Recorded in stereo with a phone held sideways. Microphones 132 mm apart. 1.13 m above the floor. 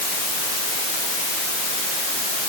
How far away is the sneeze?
No sneeze in this recording.